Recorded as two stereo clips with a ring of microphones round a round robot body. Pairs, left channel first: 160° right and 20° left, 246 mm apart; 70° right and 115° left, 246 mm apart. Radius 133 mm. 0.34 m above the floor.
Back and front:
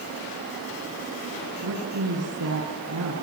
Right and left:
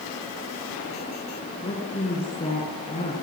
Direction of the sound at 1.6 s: Straight ahead.